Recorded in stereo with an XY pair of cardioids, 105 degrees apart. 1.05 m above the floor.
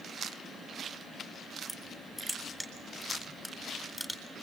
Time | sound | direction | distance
1.7 | crushing | 5° left | 8 m